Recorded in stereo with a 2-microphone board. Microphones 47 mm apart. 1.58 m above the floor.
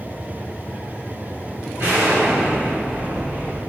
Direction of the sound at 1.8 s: 75° right (ahead or behind).